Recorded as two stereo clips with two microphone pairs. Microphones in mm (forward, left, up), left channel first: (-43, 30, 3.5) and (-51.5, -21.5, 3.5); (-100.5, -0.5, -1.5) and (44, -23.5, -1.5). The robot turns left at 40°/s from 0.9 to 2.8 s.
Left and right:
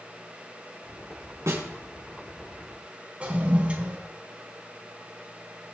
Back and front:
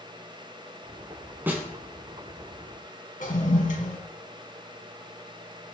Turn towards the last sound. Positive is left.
turn(degrees=-165)